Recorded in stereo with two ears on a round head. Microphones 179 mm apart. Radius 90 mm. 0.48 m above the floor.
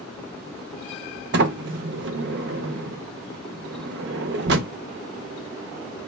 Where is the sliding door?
55° right (ahead or behind), 0.5 m.